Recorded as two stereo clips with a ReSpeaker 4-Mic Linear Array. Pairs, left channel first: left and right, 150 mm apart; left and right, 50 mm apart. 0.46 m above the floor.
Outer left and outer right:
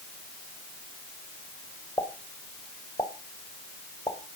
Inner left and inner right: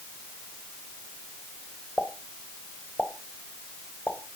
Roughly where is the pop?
Left.